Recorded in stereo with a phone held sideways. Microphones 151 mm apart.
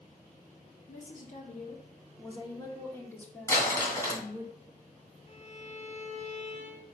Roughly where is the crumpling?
Centre.